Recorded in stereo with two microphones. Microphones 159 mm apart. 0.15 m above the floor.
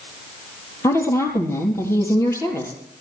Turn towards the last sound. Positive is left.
turn(degrees=15)  # may be behind; listen again after turning